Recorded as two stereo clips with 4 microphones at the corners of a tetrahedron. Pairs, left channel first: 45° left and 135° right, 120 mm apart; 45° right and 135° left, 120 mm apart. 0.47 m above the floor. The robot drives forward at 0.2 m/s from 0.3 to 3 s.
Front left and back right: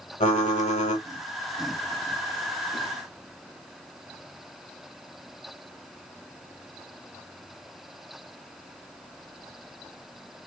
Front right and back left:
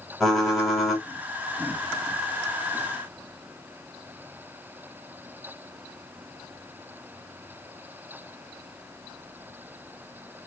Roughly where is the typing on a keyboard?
Ahead left.